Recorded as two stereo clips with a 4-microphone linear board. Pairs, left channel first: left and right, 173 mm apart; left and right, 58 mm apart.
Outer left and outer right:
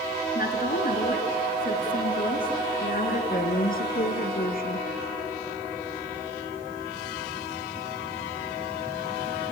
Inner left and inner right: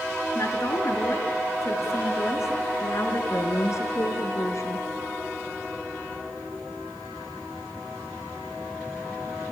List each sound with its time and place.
0.3 s a woman speaking: 60° left (ahead or behind), 2.5 m
3.3 s a woman speaking: 55° left (ahead or behind), 2 m